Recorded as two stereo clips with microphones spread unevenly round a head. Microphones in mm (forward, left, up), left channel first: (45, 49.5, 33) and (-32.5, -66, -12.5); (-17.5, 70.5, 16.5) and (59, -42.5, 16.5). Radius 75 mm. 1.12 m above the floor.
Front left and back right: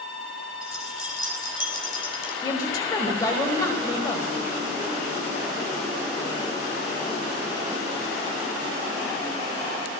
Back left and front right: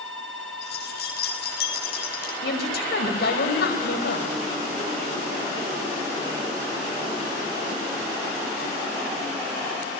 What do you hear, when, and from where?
0.6 s keys jangling: 125° left, 7 m; by 2.3 s 110° left, 7.5 m
2.4 s a woman speaking: 120° left, 5.5 m